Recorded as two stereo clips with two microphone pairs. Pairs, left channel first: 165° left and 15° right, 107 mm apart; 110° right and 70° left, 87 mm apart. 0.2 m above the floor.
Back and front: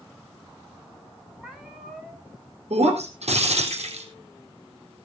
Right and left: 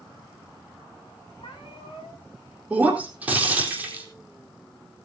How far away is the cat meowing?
About 4.5 m.